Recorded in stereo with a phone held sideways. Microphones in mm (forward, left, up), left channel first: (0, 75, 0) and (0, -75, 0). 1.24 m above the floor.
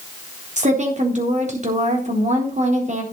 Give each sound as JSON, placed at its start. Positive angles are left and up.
{"t": 0.6, "sound": "a woman speaking", "side_deg": -50, "distance_m": 3.5}